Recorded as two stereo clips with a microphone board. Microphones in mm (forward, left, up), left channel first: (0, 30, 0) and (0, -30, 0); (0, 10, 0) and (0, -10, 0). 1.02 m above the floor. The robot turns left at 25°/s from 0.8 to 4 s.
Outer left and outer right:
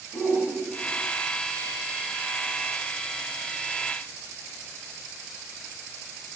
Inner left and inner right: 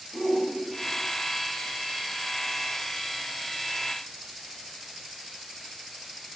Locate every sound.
0.1 s a shout: 10° right (ahead or behind), 1.7 m; by 1.0 s 15° right (ahead or behind), 1.7 m